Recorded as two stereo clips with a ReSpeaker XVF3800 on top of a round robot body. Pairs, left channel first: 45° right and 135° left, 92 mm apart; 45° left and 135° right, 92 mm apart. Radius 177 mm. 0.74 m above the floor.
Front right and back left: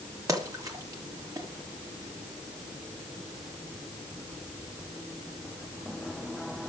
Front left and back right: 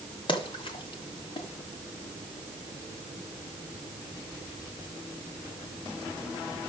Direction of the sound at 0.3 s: 80° left.